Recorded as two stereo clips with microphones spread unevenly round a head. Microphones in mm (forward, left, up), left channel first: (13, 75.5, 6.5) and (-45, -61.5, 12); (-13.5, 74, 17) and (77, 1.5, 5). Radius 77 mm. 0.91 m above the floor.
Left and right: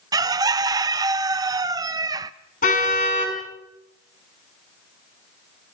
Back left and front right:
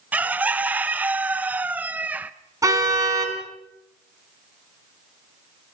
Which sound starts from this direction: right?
A bird, at 0.1 s.